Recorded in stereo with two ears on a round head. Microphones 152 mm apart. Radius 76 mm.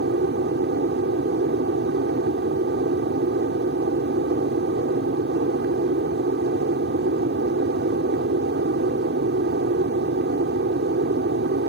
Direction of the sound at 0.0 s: 65° right (ahead or behind).